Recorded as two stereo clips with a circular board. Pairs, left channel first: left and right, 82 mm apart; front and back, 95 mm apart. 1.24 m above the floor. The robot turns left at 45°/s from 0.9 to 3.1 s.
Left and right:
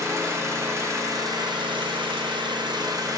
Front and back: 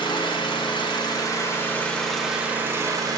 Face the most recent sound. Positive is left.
turn(degrees=-130)